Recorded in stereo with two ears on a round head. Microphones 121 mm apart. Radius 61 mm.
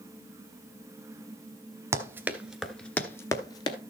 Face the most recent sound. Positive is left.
turn(degrees=35)  # may be behind; listen again after turning